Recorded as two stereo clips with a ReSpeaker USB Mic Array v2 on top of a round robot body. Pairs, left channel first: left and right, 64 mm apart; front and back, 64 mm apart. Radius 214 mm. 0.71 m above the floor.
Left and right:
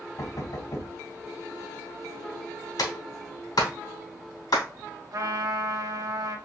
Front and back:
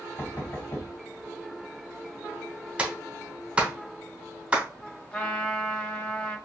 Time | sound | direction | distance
0.2 | knocking | 60° left | 3 m
2.8 | a clap | 105° left | 2.5 m
5.1 | a trumpet | 70° right | 1.4 m